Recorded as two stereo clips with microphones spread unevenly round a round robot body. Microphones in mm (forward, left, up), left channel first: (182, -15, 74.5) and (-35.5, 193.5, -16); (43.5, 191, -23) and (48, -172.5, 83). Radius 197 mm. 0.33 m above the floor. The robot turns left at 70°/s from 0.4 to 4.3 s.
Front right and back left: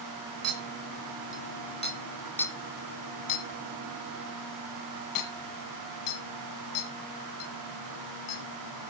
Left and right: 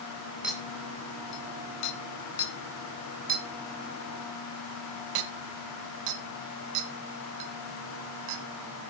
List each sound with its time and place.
0.4 s a clink: straight behind, 1.8 m; by 8.9 s 90° right, 1.8 m